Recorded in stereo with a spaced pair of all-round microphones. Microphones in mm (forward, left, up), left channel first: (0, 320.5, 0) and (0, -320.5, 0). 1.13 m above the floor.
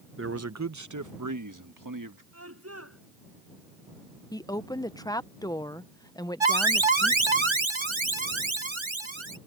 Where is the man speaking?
20° right (ahead or behind); by 2.2 s 30° right (ahead or behind).